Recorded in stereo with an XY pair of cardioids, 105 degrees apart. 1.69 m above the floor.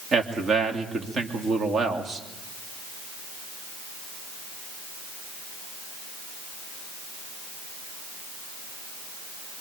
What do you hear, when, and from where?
0.1 s a man speaking: 45° right, 3 m